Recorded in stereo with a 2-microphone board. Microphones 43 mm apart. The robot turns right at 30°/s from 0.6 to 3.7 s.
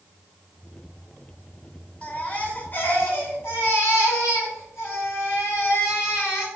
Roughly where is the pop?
No pop in this recording.